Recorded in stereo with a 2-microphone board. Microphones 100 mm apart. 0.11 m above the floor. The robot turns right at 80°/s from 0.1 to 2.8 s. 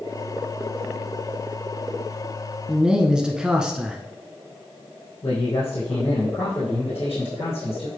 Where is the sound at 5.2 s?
65° left (ahead or behind), 2.5 m.